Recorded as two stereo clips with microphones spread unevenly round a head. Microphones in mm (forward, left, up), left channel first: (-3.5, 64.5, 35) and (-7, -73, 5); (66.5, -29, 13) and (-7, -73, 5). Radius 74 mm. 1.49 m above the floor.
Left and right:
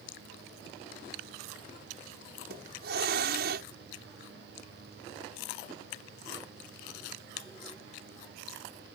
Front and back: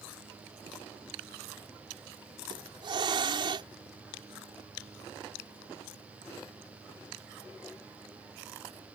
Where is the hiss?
115° right.